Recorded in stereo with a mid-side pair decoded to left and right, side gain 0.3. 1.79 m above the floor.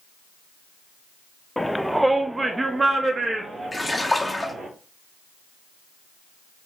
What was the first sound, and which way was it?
A shout, 15° left.